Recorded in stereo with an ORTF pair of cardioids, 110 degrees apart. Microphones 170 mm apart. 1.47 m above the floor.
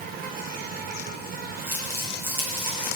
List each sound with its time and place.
0.0 s an insect: 60° right, 1.0 m
1.7 s crumpling: 15° right, 3.5 m